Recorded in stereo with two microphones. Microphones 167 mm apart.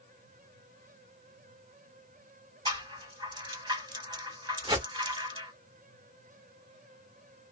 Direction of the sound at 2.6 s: 25° right (ahead or behind).